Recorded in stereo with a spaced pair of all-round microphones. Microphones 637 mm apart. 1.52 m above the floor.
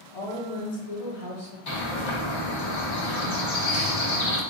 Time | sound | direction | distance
0.1 | a woman speaking | 75° left (ahead or behind) | 1.2 m
1.7 | a bird | 50° left (ahead or behind) | 0.7 m